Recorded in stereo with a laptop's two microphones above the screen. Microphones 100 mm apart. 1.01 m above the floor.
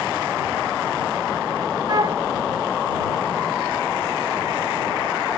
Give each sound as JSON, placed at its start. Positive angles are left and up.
{"t": 1.9, "sound": "a flute", "side_deg": -40}